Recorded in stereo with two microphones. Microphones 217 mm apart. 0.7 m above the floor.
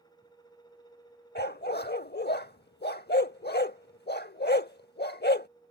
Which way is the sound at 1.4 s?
45° left (ahead or behind).